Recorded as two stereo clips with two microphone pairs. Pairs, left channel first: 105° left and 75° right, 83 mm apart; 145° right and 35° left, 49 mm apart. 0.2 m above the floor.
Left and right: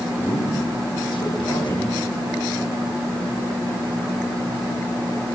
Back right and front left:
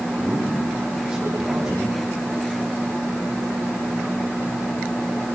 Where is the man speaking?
110° left, 8 m.